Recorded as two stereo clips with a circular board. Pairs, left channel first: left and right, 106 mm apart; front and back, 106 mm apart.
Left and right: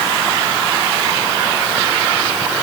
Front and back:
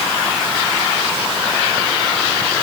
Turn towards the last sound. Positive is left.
No sound to turn to.